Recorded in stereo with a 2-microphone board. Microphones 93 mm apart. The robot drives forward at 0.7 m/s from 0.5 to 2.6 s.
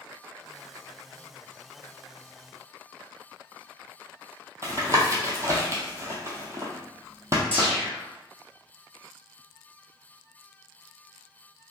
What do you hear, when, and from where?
4.6 s tapping: 30° right (ahead or behind), 0.9 m
7.5 s a whoosh: 20° left (ahead or behind), 1.0 m